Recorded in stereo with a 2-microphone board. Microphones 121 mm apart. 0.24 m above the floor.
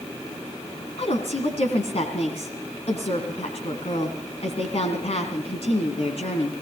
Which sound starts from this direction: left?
A woman speaking, at 1.0 s.